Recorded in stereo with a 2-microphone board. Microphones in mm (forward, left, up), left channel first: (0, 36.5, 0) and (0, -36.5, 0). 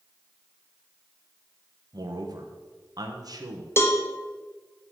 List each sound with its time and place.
1.9 s a man speaking: 60° right (ahead or behind), 1.1 m
3.8 s a cowbell: 35° left (ahead or behind), 1.0 m